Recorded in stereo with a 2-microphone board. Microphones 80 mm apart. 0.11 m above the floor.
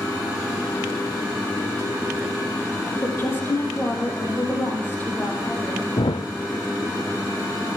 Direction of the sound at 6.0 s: 85° left.